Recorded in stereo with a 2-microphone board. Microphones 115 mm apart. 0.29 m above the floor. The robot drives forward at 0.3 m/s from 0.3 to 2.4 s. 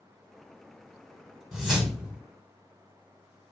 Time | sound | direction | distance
1.5 | a whoosh | 5° right (ahead or behind) | 0.7 m